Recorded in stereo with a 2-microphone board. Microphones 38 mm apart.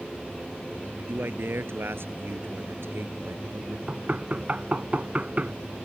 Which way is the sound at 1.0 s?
75° right (ahead or behind).